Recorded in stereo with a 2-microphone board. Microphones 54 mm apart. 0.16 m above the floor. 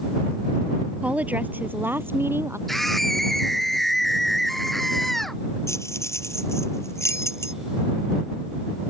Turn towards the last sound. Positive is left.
turn(degrees=60)  # may be behind; listen again after turning